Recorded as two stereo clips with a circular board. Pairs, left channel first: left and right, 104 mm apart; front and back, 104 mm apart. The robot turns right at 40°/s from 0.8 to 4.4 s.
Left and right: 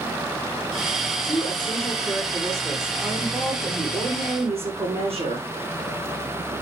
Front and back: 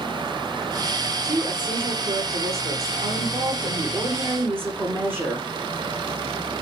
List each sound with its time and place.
1.2 s a woman speaking: 125° left, 5.5 m; by 5.5 s 110° right, 5.5 m